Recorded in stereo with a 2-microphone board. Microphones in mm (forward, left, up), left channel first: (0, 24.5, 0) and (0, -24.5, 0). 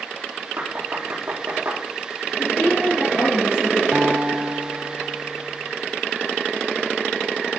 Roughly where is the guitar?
Right.